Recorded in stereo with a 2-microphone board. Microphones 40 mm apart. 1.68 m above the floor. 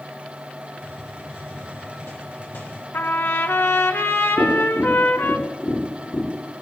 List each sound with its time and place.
0.8 s a hiss: 55° left (ahead or behind), 4.5 m
2.9 s a trumpet: 65° left (ahead or behind), 1.3 m
4.4 s tapping: 75° left (ahead or behind), 4 m